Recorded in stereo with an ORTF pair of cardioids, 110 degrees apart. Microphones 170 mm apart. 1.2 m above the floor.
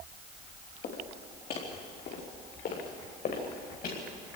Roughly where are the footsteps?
Ahead left.